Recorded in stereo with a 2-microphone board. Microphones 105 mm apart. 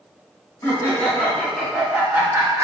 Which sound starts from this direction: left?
Laughter, at 0.6 s.